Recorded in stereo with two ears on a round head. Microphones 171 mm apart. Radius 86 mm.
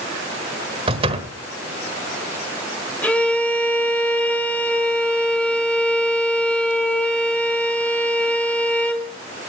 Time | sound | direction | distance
0.9 | a door slam | 30° right (ahead or behind) | 1.4 m
3.0 | a violin | 10° left (ahead or behind) | 1.8 m